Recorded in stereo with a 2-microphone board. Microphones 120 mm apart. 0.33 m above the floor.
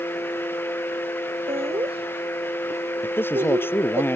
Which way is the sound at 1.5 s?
50° right (ahead or behind).